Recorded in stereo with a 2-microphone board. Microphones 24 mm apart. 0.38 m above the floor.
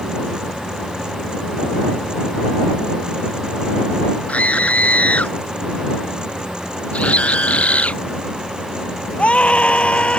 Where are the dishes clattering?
I don't hear dishes clattering.